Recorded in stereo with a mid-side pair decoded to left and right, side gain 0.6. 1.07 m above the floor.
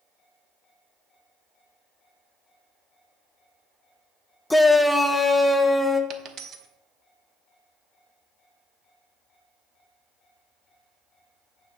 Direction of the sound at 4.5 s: 10° left.